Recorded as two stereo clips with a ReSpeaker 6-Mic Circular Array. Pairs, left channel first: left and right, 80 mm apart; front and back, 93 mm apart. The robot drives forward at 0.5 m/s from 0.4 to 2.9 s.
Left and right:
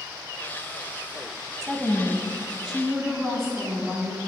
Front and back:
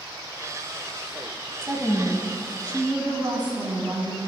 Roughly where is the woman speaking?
Behind.